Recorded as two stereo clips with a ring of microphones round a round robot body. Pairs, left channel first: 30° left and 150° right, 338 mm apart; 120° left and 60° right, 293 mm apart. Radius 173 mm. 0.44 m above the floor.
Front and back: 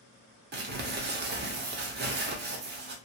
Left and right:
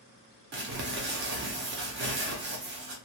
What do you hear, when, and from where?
0.5 s crumpling: 100° right, 0.7 m